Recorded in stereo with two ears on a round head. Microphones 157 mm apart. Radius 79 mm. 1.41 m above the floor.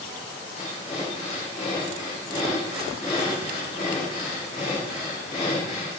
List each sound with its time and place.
0.6 s breathing: 40° left (ahead or behind), 7 m